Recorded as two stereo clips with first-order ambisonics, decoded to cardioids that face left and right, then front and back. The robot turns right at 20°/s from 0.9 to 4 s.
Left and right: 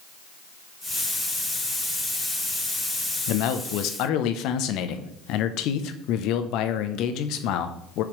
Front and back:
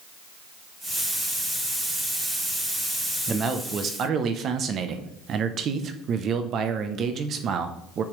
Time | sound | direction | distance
3.3 | a man speaking | 110° left | 0.7 m